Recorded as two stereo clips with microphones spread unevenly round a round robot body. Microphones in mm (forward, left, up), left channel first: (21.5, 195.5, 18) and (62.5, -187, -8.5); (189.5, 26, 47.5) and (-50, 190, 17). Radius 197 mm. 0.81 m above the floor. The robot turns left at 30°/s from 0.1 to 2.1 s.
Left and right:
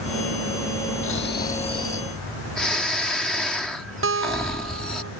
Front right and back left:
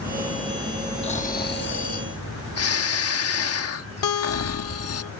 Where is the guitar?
25° right.